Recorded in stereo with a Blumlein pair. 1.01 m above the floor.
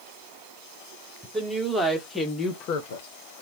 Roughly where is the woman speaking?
Ahead.